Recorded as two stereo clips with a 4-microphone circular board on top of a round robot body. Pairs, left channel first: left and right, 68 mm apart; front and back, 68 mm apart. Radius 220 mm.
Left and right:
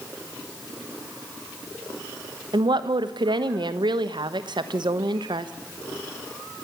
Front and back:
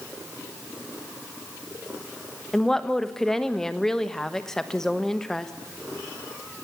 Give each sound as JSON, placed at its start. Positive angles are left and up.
{"t": 2.5, "sound": "a woman speaking", "azimuth_deg": -85, "distance_m": 1.3}